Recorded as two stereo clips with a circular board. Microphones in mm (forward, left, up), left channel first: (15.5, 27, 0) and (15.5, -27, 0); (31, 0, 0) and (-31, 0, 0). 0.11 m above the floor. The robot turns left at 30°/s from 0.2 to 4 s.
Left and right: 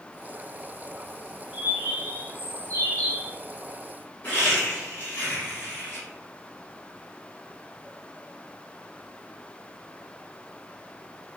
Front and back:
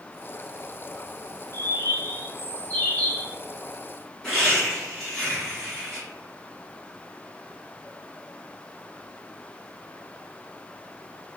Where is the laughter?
75° left, 1.6 m.